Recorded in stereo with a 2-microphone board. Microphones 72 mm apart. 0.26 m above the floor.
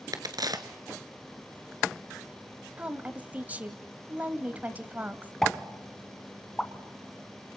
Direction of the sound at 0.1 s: 60° right (ahead or behind).